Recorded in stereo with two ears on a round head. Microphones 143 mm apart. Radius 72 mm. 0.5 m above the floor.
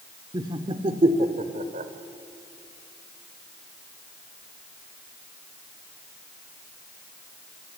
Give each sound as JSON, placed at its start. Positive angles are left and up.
{"t": 0.3, "sound": "laughter", "side_deg": -25, "distance_m": 1.4}